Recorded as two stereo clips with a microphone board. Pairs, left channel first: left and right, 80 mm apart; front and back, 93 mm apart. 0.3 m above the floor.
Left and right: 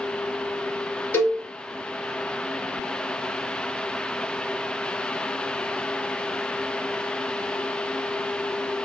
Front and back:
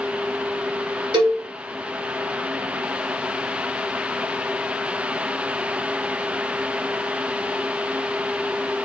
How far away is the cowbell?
About 1.4 m.